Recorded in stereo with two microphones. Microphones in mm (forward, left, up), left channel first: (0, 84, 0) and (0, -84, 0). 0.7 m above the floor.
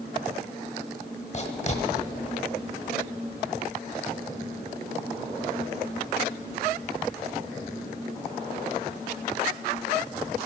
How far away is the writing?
About 1.1 m.